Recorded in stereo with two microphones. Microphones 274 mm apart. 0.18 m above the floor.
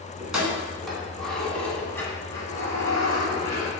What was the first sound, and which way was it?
Keys jangling, 5° right (ahead or behind).